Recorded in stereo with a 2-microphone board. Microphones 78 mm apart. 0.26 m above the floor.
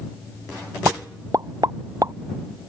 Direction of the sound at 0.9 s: 50° right (ahead or behind).